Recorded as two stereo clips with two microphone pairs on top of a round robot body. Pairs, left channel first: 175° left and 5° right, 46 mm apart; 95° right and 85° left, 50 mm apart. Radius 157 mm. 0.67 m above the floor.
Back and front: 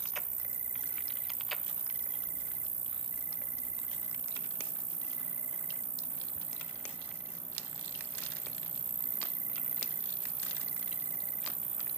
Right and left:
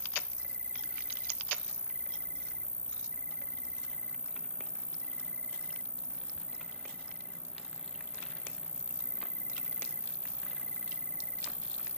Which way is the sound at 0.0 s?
25° right.